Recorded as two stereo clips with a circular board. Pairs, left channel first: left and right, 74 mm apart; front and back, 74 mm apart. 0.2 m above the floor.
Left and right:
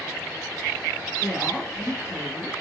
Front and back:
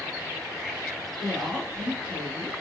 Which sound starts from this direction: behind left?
A woman speaking, at 1.2 s.